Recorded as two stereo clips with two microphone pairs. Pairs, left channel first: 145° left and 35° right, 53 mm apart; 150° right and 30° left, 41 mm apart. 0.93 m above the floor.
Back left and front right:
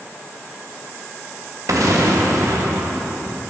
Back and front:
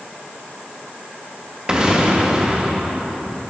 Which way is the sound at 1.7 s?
40° right.